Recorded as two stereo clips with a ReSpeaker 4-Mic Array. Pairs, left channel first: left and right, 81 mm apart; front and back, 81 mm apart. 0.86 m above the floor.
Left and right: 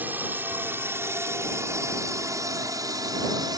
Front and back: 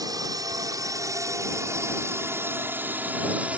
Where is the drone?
155° right; by 3.6 s 110° right.